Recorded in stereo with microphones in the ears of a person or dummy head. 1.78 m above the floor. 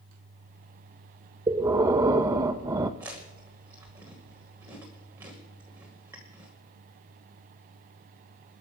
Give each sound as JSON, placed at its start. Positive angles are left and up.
{"t": 1.5, "sound": "breathing", "side_deg": -20, "distance_m": 0.7}
{"t": 3.0, "sound": "chewing", "side_deg": -15, "distance_m": 1.7}